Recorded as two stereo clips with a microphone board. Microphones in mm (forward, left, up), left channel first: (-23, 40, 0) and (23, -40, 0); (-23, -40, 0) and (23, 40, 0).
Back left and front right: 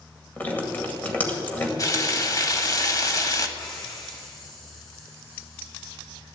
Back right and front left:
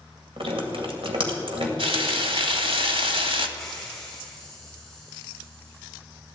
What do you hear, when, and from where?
0.4 s dripping: 50° left, 2 m
1.8 s frying: 70° left, 1.3 m
3.6 s a hiss: 155° left, 5 m